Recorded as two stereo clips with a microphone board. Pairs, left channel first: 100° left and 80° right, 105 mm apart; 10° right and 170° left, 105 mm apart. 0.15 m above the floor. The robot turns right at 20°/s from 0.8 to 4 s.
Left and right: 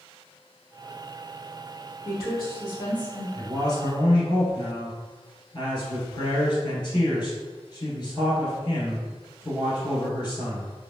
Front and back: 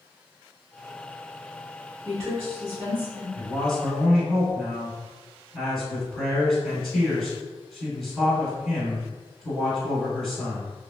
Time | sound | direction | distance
2.0 | a woman speaking | 115° left | 1.8 m
3.4 | a man speaking | 65° left | 1.4 m